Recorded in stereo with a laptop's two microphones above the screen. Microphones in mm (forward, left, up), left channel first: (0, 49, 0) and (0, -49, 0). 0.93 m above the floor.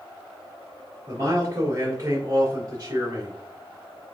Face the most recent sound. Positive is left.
turn(degrees=-45)  # may be behind; listen again after turning